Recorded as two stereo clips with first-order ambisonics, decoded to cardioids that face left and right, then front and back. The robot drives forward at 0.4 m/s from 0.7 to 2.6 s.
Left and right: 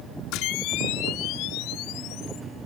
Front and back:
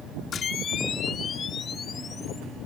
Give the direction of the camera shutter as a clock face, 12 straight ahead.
10 o'clock.